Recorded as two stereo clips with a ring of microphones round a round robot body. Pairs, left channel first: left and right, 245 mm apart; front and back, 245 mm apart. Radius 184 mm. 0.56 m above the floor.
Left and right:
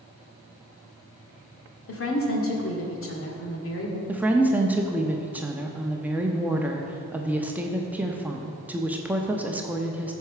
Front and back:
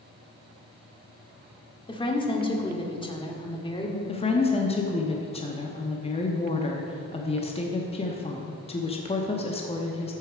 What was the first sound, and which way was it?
A woman speaking, 70° left.